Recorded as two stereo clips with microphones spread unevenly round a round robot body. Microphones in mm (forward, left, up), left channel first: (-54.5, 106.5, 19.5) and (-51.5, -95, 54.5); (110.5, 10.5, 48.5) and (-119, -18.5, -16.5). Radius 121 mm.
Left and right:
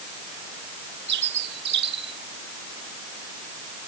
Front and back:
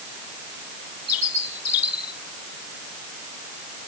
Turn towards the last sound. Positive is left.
turn(degrees=-40)